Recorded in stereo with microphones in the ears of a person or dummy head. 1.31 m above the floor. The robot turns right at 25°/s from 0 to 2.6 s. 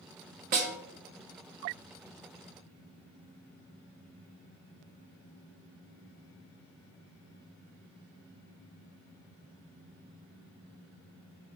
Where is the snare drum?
50° right (ahead or behind), 0.7 m; by 0.7 s 45° right (ahead or behind), 0.7 m.